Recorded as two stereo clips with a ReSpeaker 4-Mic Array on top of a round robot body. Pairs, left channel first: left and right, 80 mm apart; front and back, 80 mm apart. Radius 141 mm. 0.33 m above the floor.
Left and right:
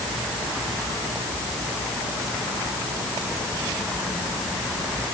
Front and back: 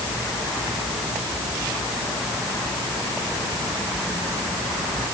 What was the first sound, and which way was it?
Only background noise.